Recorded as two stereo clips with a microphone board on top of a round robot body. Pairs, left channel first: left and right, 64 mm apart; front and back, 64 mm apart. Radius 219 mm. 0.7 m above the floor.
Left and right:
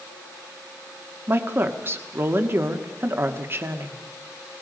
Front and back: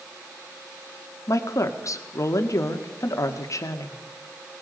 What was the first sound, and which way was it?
A woman speaking, 35° right.